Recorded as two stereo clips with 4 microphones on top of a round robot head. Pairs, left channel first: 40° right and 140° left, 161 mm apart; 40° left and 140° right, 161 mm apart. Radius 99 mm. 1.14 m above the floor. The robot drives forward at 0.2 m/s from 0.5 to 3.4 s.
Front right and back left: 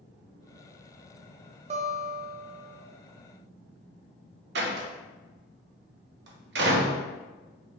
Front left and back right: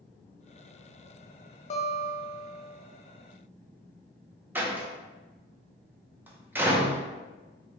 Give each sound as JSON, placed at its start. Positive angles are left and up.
{"t": 1.7, "sound": "a guitar", "azimuth_deg": 90, "distance_m": 0.6}
{"t": 4.5, "sound": "a door slam", "azimuth_deg": 140, "distance_m": 0.7}